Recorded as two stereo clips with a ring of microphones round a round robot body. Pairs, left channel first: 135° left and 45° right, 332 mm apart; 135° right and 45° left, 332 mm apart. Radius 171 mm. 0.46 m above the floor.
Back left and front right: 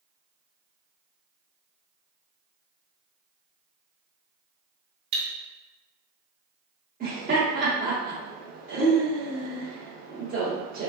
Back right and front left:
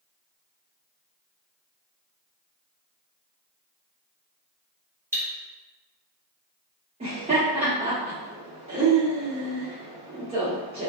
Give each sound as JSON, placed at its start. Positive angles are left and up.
{"t": 5.1, "sound": "cutlery clinking", "azimuth_deg": -40, "distance_m": 0.9}
{"t": 7.0, "sound": "laughter", "azimuth_deg": -10, "distance_m": 0.8}